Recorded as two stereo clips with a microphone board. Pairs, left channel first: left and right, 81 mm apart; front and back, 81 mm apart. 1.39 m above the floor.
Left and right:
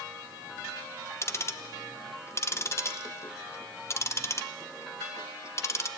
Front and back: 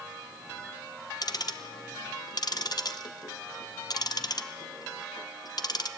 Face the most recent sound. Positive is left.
turn(degrees=35)